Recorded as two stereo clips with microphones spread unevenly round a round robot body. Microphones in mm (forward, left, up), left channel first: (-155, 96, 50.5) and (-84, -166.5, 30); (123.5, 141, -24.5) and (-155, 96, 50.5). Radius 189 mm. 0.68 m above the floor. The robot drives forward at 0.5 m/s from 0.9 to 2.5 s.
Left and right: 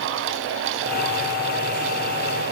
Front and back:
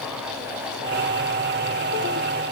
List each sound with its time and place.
Only background noise.